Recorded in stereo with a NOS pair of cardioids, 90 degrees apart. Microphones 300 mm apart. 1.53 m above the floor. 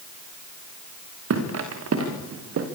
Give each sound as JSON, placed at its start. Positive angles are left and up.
{"t": 1.3, "sound": "footsteps", "azimuth_deg": -60, "distance_m": 6.5}